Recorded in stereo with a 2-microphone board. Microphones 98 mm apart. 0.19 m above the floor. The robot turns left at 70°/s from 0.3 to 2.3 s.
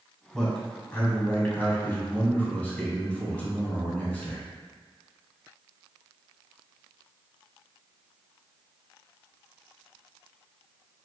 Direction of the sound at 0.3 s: Centre (ahead or behind).